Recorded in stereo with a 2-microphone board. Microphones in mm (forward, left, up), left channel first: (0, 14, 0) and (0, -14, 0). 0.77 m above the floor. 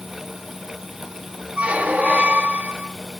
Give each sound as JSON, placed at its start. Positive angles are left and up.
{"t": 1.6, "sound": "a squeak", "side_deg": -60, "distance_m": 0.6}